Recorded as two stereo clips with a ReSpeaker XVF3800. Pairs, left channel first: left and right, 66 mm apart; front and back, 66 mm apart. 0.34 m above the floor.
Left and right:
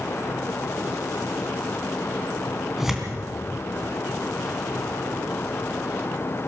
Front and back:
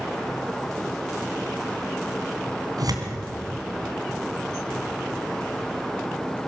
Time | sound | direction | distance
2.8 | tearing paper | 175° right | 3 m